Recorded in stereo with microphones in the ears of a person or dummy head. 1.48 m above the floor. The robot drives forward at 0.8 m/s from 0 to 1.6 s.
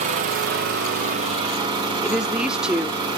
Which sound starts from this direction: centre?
A woman speaking, at 2.0 s.